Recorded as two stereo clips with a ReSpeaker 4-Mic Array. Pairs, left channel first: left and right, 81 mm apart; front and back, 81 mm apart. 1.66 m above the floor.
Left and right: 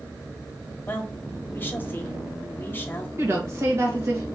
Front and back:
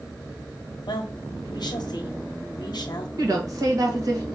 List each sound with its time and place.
0.9 s a woman speaking: 25° left, 0.9 m
3.2 s a woman speaking: 145° right, 1.5 m